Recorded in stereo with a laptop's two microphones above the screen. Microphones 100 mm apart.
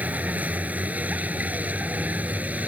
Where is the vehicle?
15° right (ahead or behind).